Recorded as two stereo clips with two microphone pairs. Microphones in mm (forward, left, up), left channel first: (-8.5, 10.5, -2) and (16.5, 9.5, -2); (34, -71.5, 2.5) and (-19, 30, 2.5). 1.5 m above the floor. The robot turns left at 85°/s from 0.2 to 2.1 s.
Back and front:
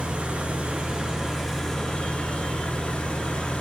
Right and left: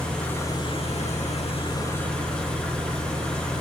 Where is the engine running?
20° left, 2 m; by 3.6 s 140° right, 2 m.